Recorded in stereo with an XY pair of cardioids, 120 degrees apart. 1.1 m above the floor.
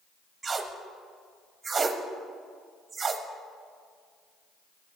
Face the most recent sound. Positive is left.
turn(degrees=-25)